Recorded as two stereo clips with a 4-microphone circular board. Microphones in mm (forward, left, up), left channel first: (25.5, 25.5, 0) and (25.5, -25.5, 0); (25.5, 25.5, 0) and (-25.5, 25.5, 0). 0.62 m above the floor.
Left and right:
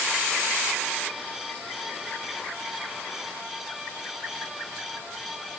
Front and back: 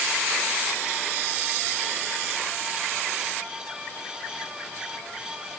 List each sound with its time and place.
Only background noise.